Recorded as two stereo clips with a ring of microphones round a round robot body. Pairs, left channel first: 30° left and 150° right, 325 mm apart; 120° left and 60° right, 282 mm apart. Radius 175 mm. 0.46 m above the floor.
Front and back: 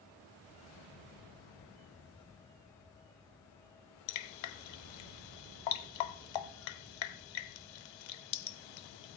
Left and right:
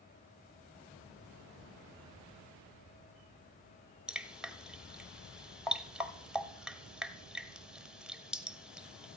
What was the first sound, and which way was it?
Dripping, 30° left.